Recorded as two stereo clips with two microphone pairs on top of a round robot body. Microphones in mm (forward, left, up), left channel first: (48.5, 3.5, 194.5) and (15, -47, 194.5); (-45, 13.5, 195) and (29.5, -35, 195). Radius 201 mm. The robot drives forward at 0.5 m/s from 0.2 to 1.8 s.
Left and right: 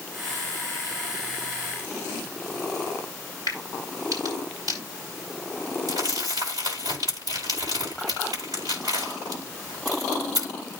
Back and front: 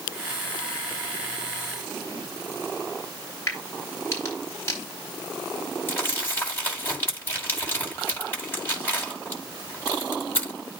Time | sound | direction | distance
3.5 | a crack | 155° right | 4 m
5.9 | crumpling | 145° right | 8.5 m